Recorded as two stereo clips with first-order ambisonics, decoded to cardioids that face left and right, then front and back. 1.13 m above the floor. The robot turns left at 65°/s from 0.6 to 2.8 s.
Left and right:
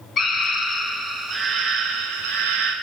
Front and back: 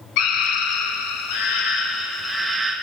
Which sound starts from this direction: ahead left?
A scream, at 0.2 s.